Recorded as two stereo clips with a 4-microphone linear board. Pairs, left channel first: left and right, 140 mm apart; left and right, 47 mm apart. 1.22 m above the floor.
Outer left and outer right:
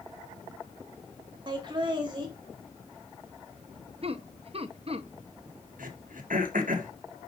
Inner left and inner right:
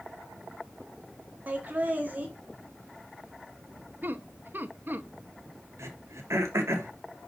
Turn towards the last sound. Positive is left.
turn(degrees=-75)  # may be behind; listen again after turning